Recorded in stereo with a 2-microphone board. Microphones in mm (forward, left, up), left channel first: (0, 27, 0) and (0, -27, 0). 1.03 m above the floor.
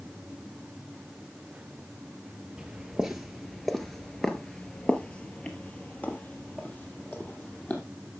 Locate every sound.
2.6 s footsteps: 15° right (ahead or behind), 1.2 m; by 7.8 s 30° left (ahead or behind), 2.5 m